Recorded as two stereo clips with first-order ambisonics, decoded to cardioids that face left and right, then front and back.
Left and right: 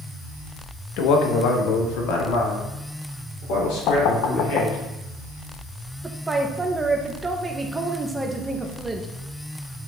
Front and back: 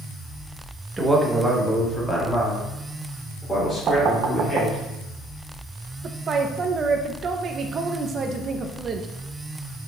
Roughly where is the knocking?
Behind left.